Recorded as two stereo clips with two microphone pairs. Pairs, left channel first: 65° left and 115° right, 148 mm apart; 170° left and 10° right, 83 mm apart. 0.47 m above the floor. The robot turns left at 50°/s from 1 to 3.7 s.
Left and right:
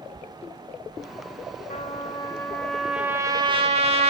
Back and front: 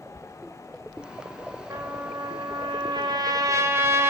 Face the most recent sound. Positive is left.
turn(degrees=-65)